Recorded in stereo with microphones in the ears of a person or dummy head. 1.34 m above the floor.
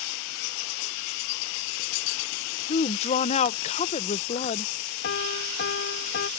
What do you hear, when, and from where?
2.7 s a woman speaking: 35° left (ahead or behind)
5.0 s a piano: 60° left (ahead or behind)